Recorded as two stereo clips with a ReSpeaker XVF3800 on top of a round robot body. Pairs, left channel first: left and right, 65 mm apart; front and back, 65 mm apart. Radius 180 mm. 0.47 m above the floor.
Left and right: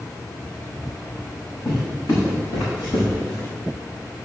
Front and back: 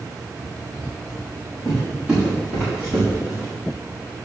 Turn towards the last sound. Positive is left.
turn(degrees=115)